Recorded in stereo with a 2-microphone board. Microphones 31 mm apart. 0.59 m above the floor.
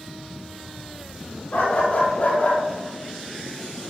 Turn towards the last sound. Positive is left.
turn(degrees=45)  # may be behind; listen again after turning